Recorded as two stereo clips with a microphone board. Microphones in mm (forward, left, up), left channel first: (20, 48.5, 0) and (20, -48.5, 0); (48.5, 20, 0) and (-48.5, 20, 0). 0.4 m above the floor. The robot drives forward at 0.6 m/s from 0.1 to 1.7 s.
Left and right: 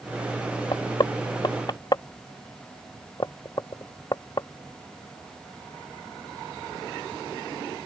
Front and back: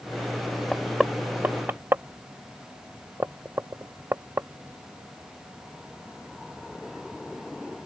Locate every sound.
0.7 s knocking: 85° left; by 4.5 s 120° left